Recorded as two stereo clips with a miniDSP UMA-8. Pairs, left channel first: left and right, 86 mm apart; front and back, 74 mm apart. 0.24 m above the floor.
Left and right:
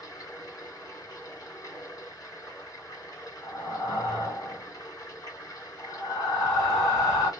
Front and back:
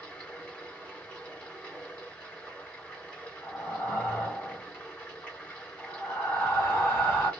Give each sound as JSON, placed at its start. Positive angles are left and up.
{"t": 0.0, "sound": "running water", "azimuth_deg": 70, "distance_m": 1.7}
{"t": 3.4, "sound": "breathing", "azimuth_deg": 65, "distance_m": 1.4}